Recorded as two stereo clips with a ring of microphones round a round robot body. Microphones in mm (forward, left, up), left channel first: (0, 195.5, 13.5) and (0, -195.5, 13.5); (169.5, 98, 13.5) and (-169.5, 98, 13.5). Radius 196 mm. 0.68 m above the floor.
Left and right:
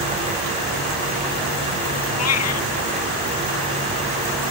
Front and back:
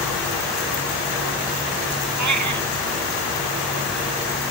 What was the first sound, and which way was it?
A cat meowing, 145° left.